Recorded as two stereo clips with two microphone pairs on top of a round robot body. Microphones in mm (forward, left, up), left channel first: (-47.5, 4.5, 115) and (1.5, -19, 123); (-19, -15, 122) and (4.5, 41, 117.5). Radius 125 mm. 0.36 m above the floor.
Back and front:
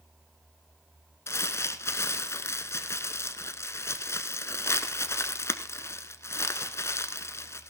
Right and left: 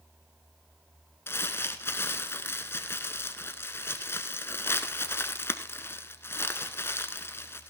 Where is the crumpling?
165° right, 1.1 m.